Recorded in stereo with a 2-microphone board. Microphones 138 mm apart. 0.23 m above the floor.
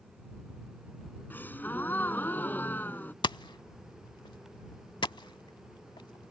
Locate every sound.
1.3 s a gasp: 15° left (ahead or behind)
3.2 s hammering: 35° left (ahead or behind)